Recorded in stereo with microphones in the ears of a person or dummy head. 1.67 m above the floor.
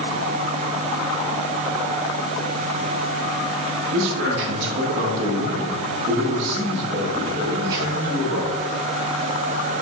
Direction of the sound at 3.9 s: 70° right (ahead or behind).